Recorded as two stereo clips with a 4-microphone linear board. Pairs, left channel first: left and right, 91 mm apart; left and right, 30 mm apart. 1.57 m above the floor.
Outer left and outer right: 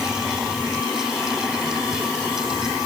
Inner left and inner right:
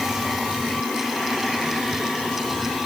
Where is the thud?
I don't hear a thud.